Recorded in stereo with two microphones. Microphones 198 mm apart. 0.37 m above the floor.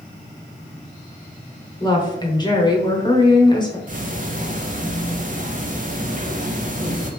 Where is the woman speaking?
20° left (ahead or behind), 0.9 m.